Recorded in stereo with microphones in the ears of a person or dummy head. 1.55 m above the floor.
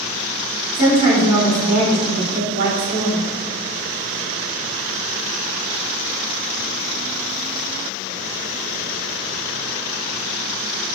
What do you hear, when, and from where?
0.7 s a woman speaking: 55° right (ahead or behind), 1.7 m